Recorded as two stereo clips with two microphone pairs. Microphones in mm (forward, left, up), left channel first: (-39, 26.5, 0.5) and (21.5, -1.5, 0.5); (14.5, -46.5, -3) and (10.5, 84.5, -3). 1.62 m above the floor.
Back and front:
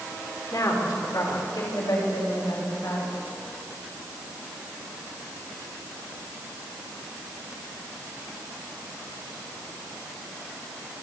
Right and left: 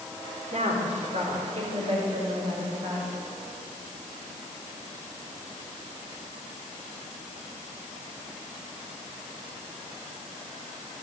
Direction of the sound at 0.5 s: 125° left.